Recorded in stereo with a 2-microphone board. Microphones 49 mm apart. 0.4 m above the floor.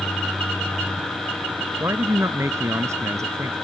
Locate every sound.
1.8 s a man speaking: 60° right (ahead or behind); by 3.5 s 80° right